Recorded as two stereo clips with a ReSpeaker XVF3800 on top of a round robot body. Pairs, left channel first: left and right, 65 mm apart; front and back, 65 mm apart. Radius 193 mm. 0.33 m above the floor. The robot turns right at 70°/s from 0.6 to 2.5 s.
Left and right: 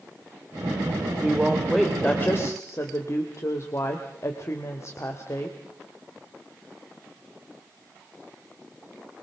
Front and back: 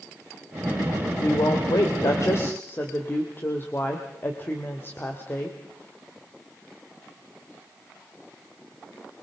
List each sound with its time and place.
1.2 s a woman speaking: 35° right, 2 m; by 5.6 s 55° left, 2 m